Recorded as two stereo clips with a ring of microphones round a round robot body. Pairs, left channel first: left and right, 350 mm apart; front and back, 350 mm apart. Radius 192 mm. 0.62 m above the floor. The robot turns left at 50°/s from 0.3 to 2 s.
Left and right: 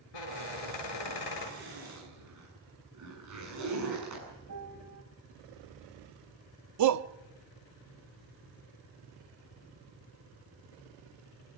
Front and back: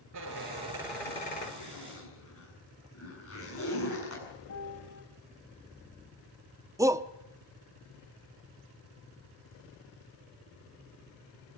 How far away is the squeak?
About 4 m.